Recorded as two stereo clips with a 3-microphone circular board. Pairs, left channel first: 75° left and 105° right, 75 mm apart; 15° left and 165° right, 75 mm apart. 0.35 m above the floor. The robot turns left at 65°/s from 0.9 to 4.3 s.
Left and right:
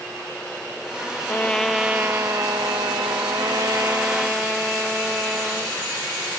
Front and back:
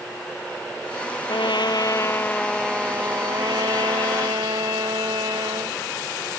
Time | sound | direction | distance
1.3 | a trumpet | 10° left | ?